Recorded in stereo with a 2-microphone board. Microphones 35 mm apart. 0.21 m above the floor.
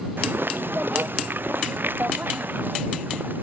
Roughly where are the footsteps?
Right.